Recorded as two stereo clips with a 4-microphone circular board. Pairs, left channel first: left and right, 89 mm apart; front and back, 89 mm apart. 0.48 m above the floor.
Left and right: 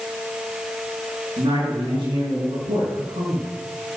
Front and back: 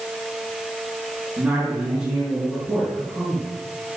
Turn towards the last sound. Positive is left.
turn(degrees=-90)